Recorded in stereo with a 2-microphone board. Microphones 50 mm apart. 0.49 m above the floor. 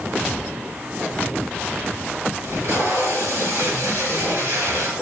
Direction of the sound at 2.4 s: 70° right (ahead or behind).